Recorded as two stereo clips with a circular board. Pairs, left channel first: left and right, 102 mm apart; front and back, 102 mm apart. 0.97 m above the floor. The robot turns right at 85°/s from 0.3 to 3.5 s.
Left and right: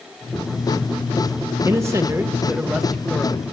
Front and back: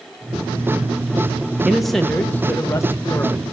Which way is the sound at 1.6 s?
105° right.